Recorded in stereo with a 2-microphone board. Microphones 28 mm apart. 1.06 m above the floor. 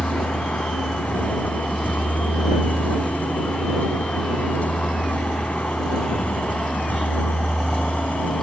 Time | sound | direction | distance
0.0 | a vehicle | 85° left | ?